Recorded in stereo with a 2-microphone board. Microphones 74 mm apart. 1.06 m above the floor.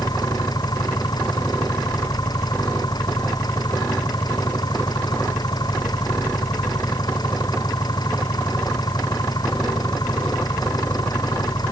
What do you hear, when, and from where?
0.0 s an engine running: 65° left (ahead or behind)